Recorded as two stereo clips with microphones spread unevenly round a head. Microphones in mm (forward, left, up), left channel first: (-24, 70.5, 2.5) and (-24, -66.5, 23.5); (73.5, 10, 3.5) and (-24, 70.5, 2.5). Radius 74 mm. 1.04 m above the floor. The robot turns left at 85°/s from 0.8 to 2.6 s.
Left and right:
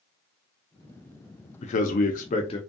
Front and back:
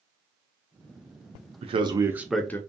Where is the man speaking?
120° left, 0.5 m; by 2.6 s 35° left, 0.5 m.